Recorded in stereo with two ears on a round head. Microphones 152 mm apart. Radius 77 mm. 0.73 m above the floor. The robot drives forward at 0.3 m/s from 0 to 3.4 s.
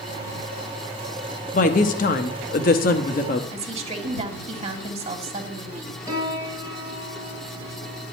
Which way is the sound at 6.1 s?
20° right (ahead or behind).